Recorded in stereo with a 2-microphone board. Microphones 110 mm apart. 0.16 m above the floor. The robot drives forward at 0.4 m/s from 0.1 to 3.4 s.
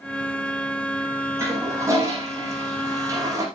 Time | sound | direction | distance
1.4 | a toilet flushing | 25° right (ahead or behind) | 6.5 m